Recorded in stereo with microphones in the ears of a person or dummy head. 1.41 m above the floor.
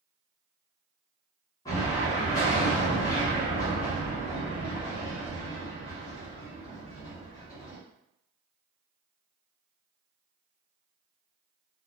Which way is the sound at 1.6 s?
15° left (ahead or behind).